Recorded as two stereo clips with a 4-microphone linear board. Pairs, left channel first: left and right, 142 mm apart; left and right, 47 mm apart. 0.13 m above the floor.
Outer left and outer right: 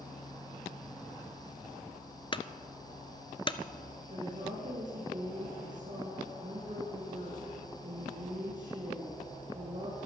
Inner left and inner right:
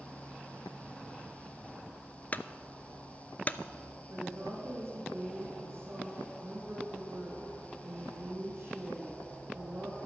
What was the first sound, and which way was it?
A clunk, 35° left (ahead or behind).